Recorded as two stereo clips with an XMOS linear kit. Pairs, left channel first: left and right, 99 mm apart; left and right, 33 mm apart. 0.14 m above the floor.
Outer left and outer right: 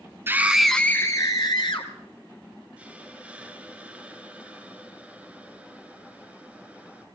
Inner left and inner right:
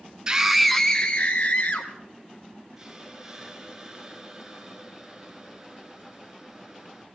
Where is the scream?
25° right (ahead or behind), 1.1 m; by 1.9 s 55° left (ahead or behind), 1.8 m.